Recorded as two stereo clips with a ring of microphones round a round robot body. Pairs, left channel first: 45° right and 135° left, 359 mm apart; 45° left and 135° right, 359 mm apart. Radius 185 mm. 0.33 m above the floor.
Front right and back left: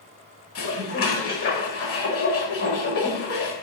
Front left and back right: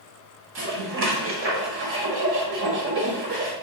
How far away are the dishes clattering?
About 1.1 m.